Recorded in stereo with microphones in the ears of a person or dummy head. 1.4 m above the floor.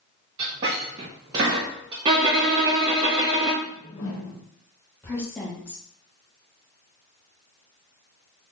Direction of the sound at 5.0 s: 10° left (ahead or behind).